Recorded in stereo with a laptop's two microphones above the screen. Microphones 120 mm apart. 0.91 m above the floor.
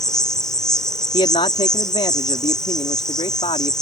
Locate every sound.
0.0 s an insect: 5° left (ahead or behind)
1.1 s a man speaking: 55° left (ahead or behind)